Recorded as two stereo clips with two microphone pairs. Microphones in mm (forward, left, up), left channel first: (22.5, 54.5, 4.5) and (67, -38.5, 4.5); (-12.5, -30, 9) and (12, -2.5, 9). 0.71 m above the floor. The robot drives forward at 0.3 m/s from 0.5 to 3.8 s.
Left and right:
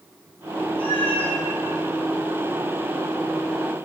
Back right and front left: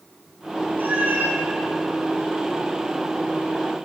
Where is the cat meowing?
95° left, 4 m; by 1.4 s 100° left, 4 m.